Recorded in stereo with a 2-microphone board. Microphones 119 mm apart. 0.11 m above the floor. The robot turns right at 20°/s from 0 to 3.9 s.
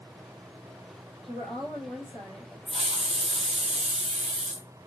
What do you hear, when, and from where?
1.3 s a woman speaking: 5° left (ahead or behind), 2 m; by 2.6 s 15° right (ahead or behind), 2 m
2.7 s a hiss: 60° right (ahead or behind), 0.9 m; by 4.7 s 75° right (ahead or behind), 0.9 m